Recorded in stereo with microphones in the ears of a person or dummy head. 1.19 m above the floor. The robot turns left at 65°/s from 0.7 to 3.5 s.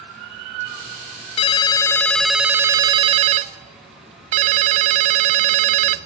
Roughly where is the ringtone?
Ahead left.